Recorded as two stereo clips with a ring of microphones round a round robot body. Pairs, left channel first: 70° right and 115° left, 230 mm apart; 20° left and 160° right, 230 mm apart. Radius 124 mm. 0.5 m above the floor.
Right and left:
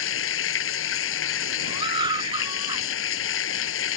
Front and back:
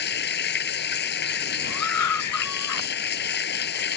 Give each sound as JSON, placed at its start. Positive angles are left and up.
{"t": 0.0, "sound": "running water", "azimuth_deg": -30}
{"t": 1.7, "sound": "a scream", "azimuth_deg": 40}